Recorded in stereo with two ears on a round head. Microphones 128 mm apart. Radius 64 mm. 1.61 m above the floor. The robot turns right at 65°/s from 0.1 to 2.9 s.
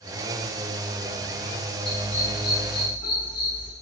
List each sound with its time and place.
1.9 s a dog barking: 35° left (ahead or behind), 4.5 m; by 3.7 s 70° left (ahead or behind), 4.5 m